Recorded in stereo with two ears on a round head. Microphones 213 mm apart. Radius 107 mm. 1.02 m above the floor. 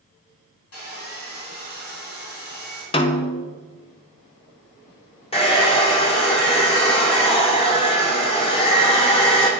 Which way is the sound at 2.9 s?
25° left (ahead or behind).